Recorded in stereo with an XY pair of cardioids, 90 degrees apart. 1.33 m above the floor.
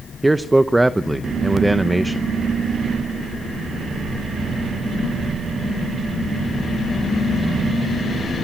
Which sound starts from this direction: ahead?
A man speaking, at 0.2 s.